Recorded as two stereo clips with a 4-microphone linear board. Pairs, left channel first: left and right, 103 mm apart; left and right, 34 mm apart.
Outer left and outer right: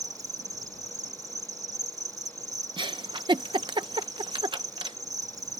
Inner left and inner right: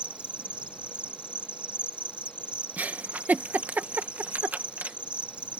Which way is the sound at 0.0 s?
35° right (ahead or behind).